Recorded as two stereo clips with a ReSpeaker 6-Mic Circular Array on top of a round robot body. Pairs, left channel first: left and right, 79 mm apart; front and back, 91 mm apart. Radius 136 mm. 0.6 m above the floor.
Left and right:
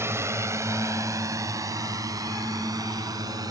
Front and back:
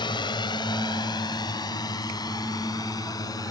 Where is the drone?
35° right; by 3.5 s 50° right.